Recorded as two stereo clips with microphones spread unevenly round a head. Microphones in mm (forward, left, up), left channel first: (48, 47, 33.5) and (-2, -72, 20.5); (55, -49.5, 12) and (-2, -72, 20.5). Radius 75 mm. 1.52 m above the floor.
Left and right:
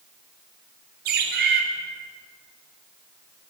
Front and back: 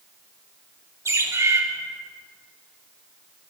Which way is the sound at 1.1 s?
120° right.